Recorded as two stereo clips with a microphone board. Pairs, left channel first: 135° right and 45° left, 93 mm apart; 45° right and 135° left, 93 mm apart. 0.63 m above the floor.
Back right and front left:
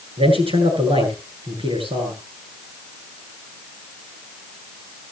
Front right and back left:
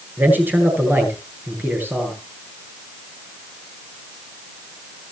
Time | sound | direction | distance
0.2 | a man speaking | 65° left | 9.5 m